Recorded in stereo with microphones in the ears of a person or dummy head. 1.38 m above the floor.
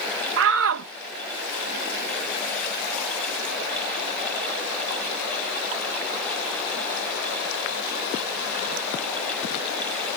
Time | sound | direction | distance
0.4 | a shout | 70° right (ahead or behind) | ?